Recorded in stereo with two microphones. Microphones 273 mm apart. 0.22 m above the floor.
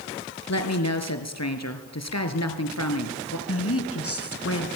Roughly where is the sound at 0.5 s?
Left.